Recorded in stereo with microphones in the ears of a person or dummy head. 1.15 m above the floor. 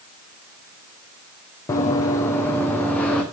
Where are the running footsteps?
20° left (ahead or behind), 3.5 m; by 3.2 s 10° left (ahead or behind), 4 m.